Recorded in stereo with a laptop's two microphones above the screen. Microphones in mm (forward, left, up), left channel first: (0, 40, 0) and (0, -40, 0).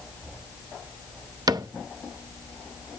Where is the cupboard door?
55° right (ahead or behind), 0.5 m.